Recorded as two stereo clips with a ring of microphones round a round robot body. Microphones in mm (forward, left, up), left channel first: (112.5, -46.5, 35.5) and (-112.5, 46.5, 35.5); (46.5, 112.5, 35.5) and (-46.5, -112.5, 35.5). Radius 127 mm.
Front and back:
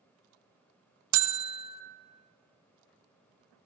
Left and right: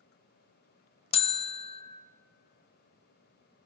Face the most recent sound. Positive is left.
turn(degrees=135)